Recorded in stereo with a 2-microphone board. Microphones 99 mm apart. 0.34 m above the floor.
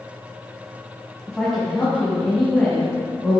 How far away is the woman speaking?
About 2 m.